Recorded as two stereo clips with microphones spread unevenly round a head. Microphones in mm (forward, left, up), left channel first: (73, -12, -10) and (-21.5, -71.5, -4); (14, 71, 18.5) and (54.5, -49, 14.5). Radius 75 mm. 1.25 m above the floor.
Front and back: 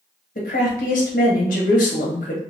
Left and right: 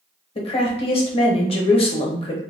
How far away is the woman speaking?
About 0.9 m.